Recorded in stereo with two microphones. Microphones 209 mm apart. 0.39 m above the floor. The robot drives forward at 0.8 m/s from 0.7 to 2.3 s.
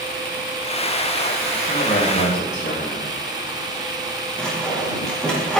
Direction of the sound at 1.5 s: 55° left (ahead or behind).